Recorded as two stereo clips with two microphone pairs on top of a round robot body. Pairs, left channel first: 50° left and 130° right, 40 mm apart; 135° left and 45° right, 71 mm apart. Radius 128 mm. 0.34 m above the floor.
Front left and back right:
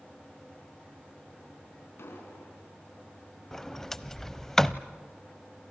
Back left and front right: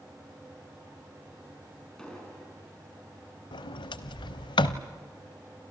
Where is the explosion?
50° left, 5 m.